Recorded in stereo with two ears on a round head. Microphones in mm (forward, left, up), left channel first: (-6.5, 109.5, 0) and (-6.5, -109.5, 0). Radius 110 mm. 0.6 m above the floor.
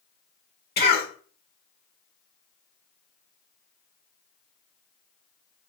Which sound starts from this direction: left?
A cough, at 0.8 s.